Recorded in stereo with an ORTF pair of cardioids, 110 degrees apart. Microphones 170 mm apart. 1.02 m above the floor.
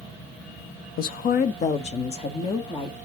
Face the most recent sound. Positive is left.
turn(degrees=30)